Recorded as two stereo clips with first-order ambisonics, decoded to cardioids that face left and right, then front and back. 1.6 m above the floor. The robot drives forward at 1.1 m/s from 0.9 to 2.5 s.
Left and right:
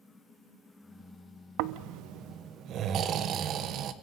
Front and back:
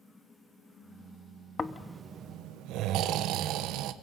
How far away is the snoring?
About 0.7 m.